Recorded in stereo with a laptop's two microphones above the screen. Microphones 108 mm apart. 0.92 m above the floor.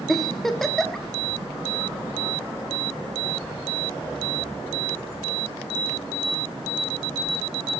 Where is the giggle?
5° left (ahead or behind), 1.3 m.